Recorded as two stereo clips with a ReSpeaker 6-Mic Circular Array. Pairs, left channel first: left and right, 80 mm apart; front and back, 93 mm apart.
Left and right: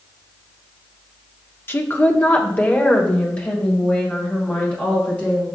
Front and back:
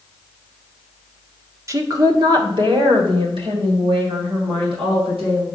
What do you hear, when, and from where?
1.7 s a woman speaking: 140° left, 0.9 m; by 5.5 s 165° left, 3.5 m